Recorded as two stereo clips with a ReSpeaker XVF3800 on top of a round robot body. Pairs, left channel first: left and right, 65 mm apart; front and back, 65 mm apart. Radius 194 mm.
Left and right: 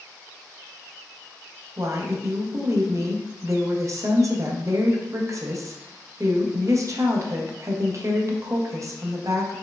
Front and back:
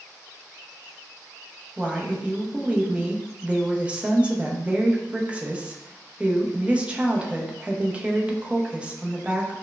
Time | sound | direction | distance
1.8 | a woman speaking | 110° right | 0.8 m